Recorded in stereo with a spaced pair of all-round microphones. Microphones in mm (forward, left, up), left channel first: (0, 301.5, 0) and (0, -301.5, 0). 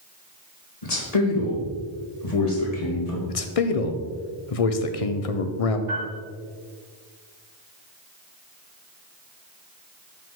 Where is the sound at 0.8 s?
85° left, 1.7 m.